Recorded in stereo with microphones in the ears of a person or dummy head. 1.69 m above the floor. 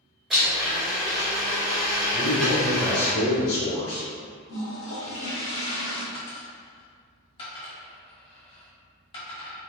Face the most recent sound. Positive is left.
turn(degrees=25)  # may be behind; listen again after turning